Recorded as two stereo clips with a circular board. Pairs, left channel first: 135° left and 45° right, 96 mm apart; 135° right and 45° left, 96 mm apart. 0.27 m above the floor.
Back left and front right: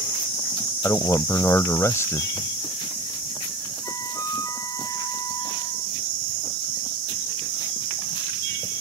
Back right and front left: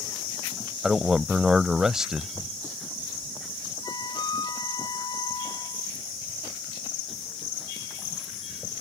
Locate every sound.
0.8 s a man speaking: 125° left
3.8 s a flute: 175° right